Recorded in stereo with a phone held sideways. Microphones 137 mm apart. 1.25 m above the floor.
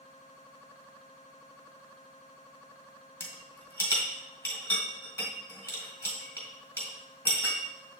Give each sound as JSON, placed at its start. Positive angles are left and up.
{"t": 3.2, "sound": "a rattle", "side_deg": 15, "distance_m": 2.0}